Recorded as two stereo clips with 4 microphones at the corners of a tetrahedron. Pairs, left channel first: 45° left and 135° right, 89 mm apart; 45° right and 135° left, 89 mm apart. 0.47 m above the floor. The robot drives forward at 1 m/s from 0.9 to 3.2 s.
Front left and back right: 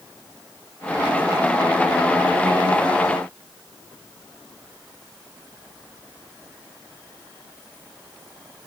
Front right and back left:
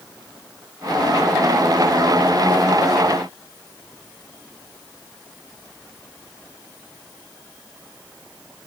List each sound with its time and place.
Only background noise.